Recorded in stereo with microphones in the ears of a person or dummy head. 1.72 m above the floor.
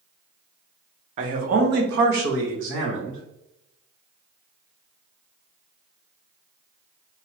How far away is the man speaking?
About 0.9 m.